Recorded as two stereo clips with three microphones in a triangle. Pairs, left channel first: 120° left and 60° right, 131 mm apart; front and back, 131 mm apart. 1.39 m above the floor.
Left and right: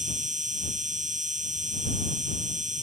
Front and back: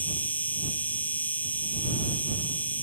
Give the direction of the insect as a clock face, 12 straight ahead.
3 o'clock.